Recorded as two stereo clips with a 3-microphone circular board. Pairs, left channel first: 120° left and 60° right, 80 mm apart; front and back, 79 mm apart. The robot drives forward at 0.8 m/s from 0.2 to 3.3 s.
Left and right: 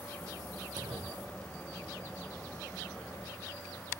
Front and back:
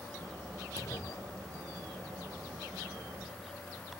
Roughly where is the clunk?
Ahead right.